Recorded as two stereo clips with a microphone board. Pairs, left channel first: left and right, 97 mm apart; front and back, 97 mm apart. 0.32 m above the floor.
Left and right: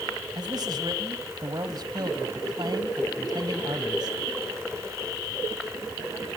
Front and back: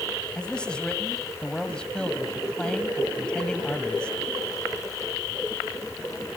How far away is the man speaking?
About 1.8 m.